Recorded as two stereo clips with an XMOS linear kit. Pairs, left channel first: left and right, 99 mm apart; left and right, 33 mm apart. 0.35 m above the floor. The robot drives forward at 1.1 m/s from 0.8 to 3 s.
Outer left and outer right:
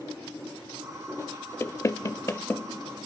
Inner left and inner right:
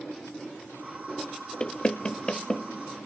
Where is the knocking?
25° left (ahead or behind), 0.7 m; by 2.7 s 20° left (ahead or behind), 0.9 m.